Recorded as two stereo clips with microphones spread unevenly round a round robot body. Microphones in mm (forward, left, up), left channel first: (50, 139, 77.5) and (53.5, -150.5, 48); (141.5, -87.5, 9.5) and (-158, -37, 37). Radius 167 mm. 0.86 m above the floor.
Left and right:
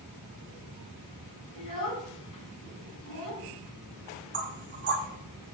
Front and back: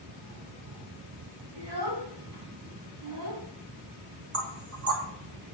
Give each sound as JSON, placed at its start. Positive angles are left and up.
{"t": 1.6, "sound": "a child speaking", "azimuth_deg": 140, "distance_m": 4.0}
{"t": 4.3, "sound": "knocking", "azimuth_deg": -145, "distance_m": 2.0}